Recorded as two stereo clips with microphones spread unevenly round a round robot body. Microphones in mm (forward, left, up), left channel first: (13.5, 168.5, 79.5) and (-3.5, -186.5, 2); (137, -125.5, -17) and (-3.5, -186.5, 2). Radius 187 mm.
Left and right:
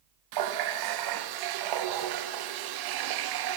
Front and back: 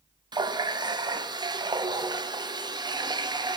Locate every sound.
0.3 s a running tap: 85° right, 0.7 m